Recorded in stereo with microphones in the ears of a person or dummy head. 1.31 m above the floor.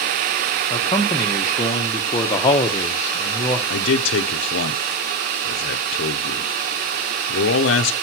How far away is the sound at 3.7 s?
About 0.7 m.